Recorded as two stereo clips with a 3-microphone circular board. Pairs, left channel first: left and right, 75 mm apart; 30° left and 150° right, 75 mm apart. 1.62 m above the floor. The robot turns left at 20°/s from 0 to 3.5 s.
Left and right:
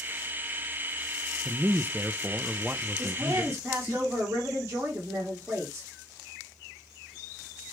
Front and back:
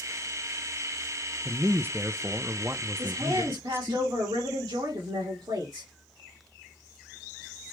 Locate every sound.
1.4 s a man speaking: 125° right, 0.5 m; by 4.0 s 165° right, 0.5 m
3.0 s a woman speaking: 135° right, 2.5 m; by 5.9 s 145° right, 2.5 m